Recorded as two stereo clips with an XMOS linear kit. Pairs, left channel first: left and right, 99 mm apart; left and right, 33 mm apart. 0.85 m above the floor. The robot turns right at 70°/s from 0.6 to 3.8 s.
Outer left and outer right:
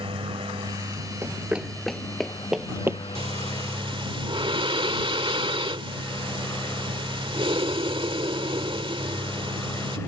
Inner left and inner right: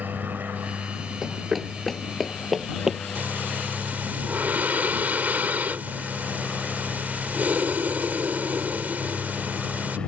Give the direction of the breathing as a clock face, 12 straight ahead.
4 o'clock.